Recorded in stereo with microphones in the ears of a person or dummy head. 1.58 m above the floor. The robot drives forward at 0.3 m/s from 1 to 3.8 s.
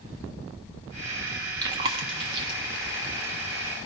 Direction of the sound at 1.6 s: 25° right (ahead or behind).